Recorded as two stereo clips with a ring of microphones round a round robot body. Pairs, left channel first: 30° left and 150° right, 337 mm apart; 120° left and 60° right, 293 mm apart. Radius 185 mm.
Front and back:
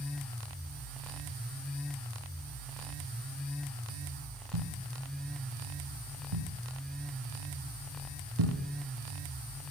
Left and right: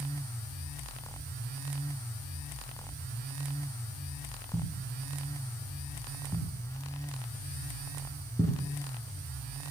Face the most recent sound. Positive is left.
turn(degrees=-160)